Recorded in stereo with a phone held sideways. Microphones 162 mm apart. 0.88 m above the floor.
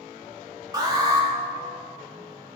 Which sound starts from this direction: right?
An alarm, at 0.7 s.